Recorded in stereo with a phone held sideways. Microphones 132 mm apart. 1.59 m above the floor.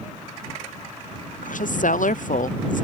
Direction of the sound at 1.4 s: 75° left (ahead or behind).